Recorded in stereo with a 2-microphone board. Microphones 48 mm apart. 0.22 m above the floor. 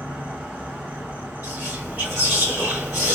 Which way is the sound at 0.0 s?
40° right (ahead or behind).